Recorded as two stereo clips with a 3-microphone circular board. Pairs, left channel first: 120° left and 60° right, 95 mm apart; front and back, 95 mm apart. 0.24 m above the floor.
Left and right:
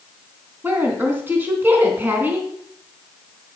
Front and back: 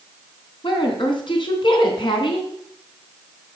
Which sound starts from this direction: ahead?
A woman speaking, at 0.6 s.